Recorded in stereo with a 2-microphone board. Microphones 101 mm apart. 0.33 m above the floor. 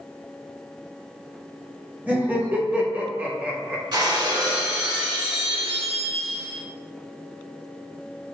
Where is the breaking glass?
50° right (ahead or behind), 1.4 m.